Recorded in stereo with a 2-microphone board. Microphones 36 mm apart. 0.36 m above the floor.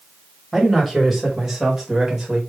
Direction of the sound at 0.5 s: Centre (ahead or behind).